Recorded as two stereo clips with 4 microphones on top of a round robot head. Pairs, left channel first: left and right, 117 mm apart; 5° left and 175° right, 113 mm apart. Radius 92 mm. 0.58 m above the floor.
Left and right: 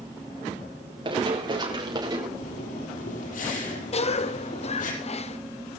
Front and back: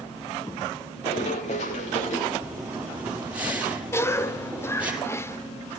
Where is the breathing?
105° left, 5 m.